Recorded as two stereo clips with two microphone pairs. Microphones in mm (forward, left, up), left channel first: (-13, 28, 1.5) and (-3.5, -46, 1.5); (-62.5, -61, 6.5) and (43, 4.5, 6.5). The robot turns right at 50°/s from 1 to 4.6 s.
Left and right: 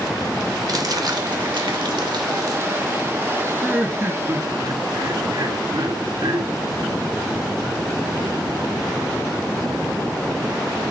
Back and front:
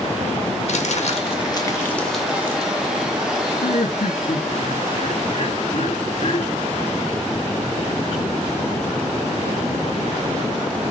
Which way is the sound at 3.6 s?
170° right.